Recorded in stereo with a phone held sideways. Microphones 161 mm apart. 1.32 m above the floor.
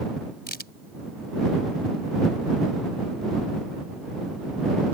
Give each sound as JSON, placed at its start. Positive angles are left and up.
{"t": 0.5, "sound": "a crack", "side_deg": 85}